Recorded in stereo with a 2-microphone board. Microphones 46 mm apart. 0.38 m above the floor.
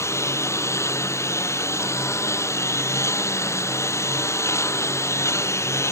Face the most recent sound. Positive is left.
turn(degrees=80)